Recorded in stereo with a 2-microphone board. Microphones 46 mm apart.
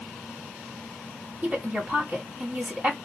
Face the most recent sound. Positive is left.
turn(degrees=-30)  # may be behind; listen again after turning